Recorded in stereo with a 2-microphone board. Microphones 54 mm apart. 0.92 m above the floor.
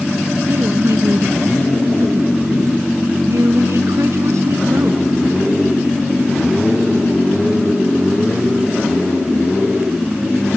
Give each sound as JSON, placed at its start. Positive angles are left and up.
{"t": 0.5, "sound": "a woman speaking", "side_deg": -65}